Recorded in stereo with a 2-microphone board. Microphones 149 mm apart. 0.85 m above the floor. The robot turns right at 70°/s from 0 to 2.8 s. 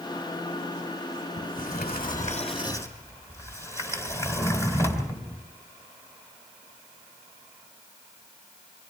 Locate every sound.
1.4 s a sliding door: 60° left, 3 m; by 5.5 s 160° left, 3 m